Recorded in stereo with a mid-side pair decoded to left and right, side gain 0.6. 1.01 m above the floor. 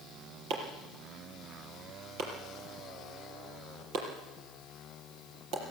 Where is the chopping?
70° right, 5.5 m.